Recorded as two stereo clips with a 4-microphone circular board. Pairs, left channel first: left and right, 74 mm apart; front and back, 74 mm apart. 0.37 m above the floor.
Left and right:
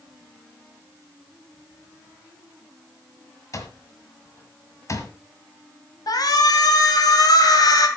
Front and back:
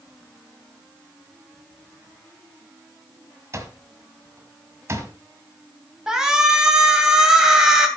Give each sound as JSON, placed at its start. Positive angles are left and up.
{"t": 3.5, "sound": "an alarm clock", "azimuth_deg": 130, "distance_m": 1.6}
{"t": 6.1, "sound": "a shout", "azimuth_deg": 100, "distance_m": 2.0}